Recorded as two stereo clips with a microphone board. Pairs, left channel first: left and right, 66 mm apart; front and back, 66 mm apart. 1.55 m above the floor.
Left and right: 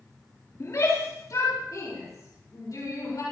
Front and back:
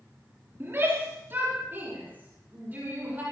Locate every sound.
0.6 s a shout: 130° left, 3.5 m; by 3.2 s 115° left, 6.5 m